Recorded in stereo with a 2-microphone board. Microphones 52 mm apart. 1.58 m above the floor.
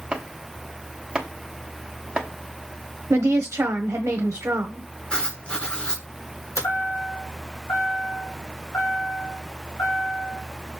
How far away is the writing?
About 1.9 m.